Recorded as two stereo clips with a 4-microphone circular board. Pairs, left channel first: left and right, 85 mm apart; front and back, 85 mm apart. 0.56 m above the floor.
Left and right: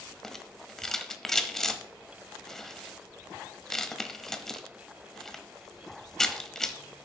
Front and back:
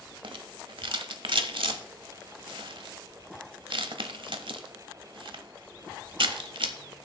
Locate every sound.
0.2 s a rattle: 175° left, 0.9 m